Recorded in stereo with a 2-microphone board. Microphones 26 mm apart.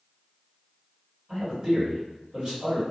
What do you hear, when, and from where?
1.3 s a man speaking: 25° right (ahead or behind), 1.9 m